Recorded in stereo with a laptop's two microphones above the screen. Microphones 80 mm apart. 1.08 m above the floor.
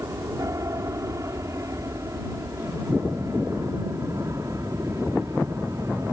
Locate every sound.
0.0 s an aircraft: 40° right (ahead or behind)